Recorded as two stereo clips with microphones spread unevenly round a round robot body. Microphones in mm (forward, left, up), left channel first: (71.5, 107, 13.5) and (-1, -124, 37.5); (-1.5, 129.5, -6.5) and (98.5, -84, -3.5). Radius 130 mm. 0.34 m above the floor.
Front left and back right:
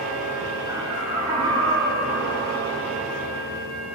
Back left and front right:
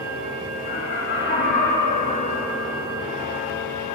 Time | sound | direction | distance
0.7 | laughter | straight behind | 3.5 m